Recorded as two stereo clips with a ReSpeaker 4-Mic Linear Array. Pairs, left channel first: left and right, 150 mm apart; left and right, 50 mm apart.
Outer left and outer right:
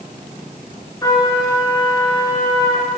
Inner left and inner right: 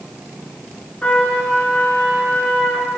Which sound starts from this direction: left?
A trumpet, at 1.0 s.